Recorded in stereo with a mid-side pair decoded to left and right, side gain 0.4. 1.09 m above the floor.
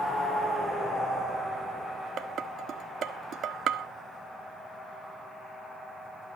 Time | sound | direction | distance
2.2 | dishes clattering | 70° right | 1.4 m